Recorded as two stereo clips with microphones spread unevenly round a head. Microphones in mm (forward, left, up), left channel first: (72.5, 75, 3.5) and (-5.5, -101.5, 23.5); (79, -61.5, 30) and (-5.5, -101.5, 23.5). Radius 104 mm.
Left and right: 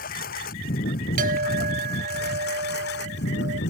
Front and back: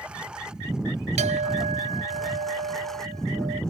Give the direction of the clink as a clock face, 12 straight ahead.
6 o'clock.